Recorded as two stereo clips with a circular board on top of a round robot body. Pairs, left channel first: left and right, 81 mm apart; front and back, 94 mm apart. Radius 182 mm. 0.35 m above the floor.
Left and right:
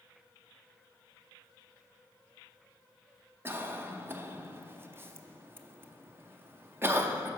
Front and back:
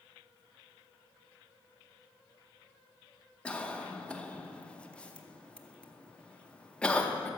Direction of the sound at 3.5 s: 70° right.